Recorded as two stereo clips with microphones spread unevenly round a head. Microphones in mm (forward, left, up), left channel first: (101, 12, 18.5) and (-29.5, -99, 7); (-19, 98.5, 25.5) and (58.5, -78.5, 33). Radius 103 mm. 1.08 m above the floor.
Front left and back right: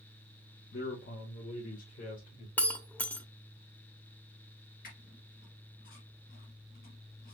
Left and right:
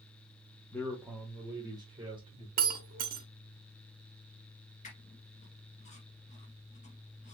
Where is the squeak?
65° left, 1.6 m.